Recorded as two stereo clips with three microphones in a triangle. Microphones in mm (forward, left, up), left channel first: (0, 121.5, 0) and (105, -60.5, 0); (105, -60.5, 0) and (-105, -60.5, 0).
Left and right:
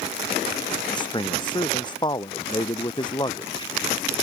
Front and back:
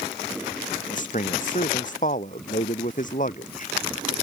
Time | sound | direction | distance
0.9 | a man speaking | 50° left | ?